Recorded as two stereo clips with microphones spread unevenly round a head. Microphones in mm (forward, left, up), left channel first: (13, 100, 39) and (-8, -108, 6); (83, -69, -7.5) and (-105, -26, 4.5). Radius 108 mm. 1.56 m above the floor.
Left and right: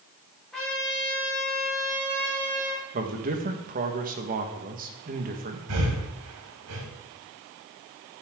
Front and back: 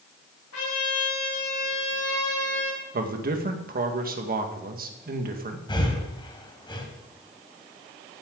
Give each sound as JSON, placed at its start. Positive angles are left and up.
{"t": 0.5, "sound": "a trumpet", "azimuth_deg": -5, "distance_m": 5.0}
{"t": 2.9, "sound": "a man speaking", "azimuth_deg": -150, "distance_m": 1.9}
{"t": 5.7, "sound": "breathing", "azimuth_deg": -80, "distance_m": 3.0}